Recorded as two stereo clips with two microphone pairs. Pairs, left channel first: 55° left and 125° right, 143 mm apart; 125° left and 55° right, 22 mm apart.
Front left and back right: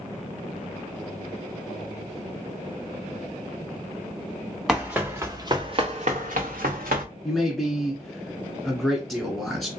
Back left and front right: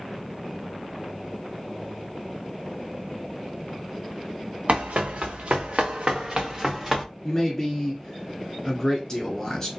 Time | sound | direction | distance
4.7 | running footsteps | 40° right | 1.3 m
7.2 | a man speaking | 145° left | 1.4 m